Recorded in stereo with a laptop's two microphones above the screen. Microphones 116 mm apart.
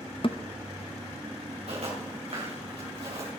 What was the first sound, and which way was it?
A thud, 50° left (ahead or behind).